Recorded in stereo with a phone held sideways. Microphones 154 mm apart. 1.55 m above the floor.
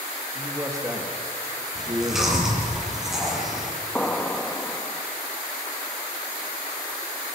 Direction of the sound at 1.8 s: 5° right (ahead or behind).